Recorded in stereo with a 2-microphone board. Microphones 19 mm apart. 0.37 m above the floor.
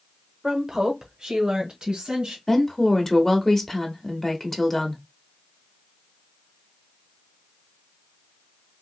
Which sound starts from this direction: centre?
A woman speaking, at 0.4 s.